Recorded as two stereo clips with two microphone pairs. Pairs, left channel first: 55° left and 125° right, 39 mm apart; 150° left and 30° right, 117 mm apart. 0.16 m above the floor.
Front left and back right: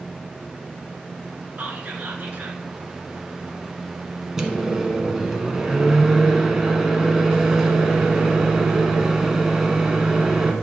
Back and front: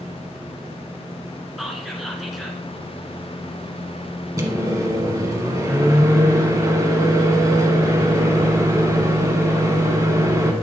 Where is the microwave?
65° right, 1.2 m.